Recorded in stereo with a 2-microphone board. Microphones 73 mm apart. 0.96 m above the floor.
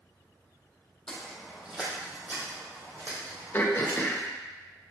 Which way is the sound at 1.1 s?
10° left (ahead or behind).